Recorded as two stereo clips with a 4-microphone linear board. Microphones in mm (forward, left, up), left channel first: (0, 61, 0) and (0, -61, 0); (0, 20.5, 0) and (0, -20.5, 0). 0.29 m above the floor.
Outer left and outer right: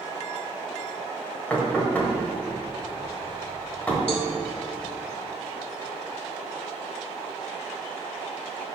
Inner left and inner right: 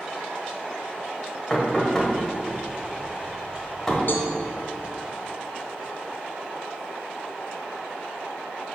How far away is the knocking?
About 1.3 m.